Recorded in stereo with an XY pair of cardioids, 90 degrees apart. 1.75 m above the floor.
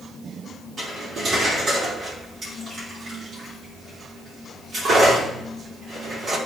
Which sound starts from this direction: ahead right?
Cutlery clinking, at 0.8 s.